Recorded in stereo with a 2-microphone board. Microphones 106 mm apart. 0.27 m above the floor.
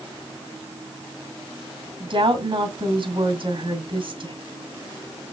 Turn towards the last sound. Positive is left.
turn(degrees=-50)  # may be behind; listen again after turning